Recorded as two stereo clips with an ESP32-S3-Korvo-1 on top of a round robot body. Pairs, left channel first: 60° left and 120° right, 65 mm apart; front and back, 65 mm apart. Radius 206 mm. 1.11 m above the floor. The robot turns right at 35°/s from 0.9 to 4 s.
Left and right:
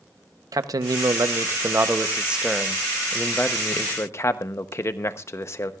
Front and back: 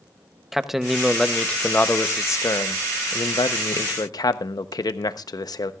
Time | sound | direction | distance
0.5 | a man speaking | 95° right | 0.9 m